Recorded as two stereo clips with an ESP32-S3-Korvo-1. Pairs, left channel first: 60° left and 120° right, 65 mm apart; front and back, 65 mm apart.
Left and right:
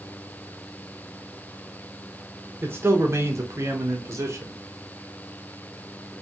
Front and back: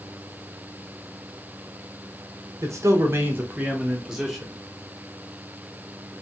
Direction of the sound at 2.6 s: 165° right.